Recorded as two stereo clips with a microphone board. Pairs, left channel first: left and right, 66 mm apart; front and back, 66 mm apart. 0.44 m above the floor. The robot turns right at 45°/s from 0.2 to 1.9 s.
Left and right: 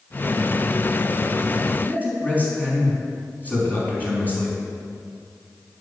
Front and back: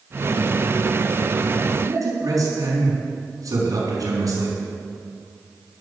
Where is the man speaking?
150° left, 4.5 m; by 4.6 s 155° left, 4.5 m.